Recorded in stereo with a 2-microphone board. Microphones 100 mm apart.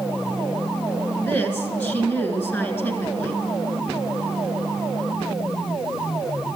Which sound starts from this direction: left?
A woman speaking, at 1.2 s.